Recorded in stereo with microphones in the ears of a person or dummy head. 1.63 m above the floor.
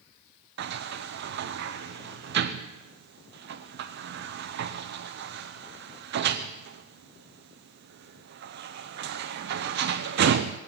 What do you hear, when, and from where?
0.6 s a sliding door: 65° right (ahead or behind), 0.7 m